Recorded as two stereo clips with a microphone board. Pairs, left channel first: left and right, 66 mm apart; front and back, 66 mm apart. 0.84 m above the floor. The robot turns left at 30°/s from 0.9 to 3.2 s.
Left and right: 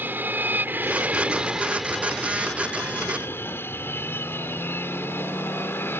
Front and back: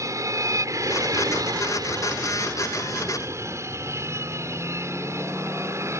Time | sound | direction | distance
0.0 | an aircraft | 150° right | ?